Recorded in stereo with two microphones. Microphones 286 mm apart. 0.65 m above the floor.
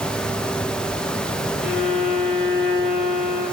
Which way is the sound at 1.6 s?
Centre (ahead or behind).